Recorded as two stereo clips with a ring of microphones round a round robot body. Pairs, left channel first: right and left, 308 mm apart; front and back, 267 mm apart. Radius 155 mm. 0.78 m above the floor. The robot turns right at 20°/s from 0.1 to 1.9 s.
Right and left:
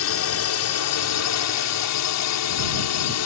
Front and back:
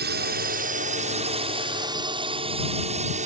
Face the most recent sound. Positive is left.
turn(degrees=-120)